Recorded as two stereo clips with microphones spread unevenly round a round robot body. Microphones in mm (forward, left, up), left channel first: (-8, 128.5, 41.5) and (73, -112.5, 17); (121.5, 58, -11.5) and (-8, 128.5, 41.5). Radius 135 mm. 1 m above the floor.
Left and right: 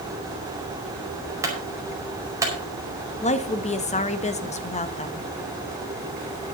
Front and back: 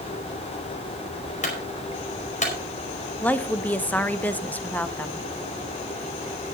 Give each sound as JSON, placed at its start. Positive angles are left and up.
{"t": 1.4, "sound": "a clunk", "azimuth_deg": 5, "distance_m": 5.0}
{"t": 3.2, "sound": "a woman speaking", "azimuth_deg": 45, "distance_m": 1.2}